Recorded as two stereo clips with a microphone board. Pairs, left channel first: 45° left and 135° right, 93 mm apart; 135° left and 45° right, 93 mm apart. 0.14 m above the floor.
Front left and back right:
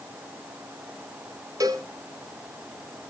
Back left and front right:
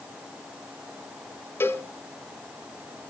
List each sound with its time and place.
1.6 s a cowbell: 170° right, 0.8 m